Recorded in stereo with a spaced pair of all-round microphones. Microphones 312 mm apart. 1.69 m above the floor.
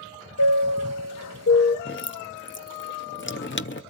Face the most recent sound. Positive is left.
turn(degrees=40)  # may be behind; listen again after turning